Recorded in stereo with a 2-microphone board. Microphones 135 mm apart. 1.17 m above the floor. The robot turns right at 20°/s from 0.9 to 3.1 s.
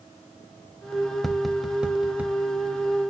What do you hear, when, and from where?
1.2 s tapping: centre (ahead or behind), 0.5 m; by 2.4 s 10° right (ahead or behind), 0.5 m